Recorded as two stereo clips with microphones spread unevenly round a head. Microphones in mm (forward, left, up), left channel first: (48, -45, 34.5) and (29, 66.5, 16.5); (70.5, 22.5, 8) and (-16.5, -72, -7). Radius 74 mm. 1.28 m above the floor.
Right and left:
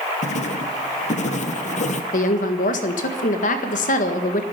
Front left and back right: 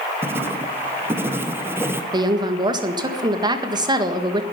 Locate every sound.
0.2 s writing: 60° right, 1.2 m
2.1 s a woman speaking: 75° right, 1.7 m